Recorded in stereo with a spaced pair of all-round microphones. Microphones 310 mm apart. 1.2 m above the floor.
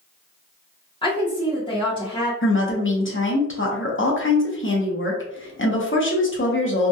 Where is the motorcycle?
No motorcycle in this recording.